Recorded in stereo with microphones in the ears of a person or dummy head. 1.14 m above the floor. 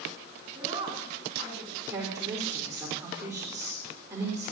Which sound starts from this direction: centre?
A woman speaking, at 1.9 s.